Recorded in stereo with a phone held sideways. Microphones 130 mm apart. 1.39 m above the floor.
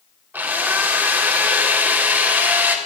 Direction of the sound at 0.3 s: 15° right (ahead or behind).